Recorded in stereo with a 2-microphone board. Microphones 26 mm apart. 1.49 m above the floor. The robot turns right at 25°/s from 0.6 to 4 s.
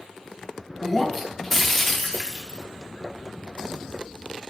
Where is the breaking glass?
Centre (ahead or behind), 0.8 m; by 2.6 s 15° left (ahead or behind), 0.8 m.